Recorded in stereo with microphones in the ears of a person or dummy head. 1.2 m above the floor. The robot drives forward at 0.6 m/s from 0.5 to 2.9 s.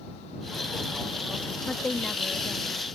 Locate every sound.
1.7 s a woman speaking: 5° left (ahead or behind)